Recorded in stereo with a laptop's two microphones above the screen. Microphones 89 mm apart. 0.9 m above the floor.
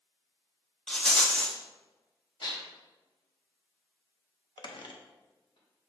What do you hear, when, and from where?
0.9 s a rattle: 5° left (ahead or behind), 1.0 m
2.4 s dishes clattering: 70° left (ahead or behind), 1.4 m
4.6 s a squeak: 60° left (ahead or behind), 0.6 m